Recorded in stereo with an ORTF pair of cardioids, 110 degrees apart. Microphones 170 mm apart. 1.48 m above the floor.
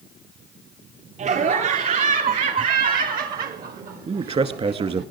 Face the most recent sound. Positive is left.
turn(degrees=-35)